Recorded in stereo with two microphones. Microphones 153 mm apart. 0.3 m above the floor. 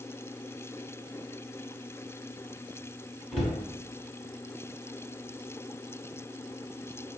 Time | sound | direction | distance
3.3 | a cupboard door | 5° left (ahead or behind) | 1.0 m